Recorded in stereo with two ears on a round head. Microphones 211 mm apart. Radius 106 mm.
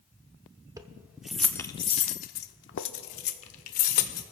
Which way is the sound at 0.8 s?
15° right (ahead or behind).